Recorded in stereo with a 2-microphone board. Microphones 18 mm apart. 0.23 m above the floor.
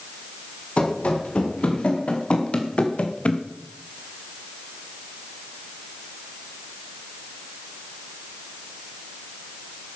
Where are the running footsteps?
90° left, 5.5 m; by 3.4 s 80° left, 1.9 m.